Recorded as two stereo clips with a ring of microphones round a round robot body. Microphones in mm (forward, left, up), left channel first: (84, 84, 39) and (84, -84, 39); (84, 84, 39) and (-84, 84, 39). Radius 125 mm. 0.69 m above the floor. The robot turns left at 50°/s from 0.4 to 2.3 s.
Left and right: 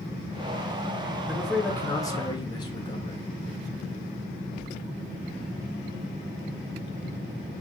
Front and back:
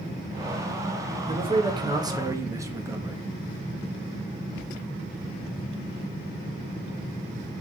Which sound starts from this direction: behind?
A man speaking, at 1.3 s.